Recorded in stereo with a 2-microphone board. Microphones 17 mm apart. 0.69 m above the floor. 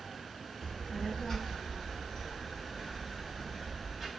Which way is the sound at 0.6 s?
60° left (ahead or behind).